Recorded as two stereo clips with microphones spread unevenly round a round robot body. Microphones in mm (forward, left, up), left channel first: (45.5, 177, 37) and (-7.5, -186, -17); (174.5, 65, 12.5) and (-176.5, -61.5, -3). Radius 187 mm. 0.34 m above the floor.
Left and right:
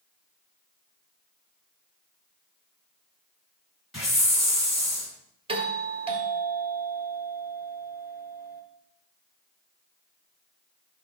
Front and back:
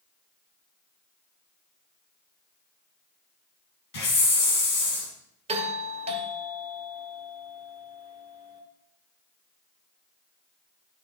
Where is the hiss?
10° right, 3 m.